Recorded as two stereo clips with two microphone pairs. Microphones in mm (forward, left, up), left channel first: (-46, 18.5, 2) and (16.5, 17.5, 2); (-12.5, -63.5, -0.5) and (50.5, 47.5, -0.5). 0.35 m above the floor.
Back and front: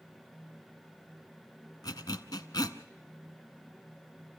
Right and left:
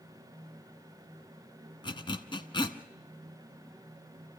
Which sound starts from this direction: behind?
A zipper, at 1.8 s.